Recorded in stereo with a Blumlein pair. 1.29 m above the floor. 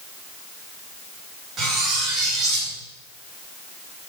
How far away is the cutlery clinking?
About 4 m.